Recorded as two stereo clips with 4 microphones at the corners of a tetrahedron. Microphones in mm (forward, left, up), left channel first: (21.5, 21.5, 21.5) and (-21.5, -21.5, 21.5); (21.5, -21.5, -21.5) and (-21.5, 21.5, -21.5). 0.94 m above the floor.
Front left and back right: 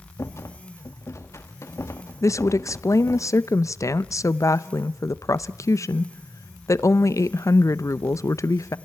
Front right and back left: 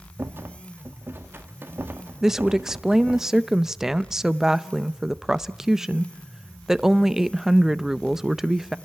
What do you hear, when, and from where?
0.2 s a rattle: 80° left, 1.7 m
2.2 s a woman speaking: 55° left, 0.6 m